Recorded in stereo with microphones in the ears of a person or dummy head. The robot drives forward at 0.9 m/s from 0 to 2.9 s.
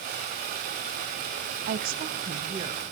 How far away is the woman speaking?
About 0.7 m.